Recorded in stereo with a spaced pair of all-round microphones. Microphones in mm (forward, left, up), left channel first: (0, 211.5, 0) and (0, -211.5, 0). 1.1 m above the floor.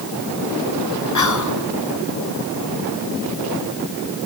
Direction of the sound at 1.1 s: 45° left (ahead or behind).